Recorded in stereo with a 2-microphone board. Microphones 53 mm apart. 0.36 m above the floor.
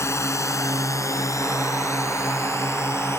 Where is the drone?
60° left (ahead or behind); by 3.2 s 55° left (ahead or behind).